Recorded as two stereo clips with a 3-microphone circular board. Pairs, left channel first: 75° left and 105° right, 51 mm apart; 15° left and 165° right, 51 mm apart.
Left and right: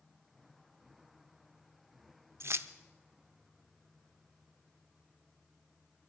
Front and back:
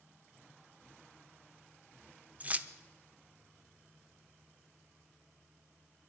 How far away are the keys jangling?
About 0.6 m.